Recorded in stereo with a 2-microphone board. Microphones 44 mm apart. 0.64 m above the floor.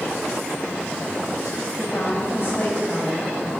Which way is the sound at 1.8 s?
55° left (ahead or behind).